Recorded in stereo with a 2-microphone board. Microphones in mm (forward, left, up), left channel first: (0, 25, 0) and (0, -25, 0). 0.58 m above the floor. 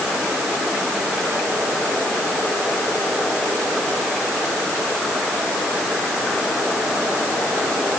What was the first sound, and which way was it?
Only background noise.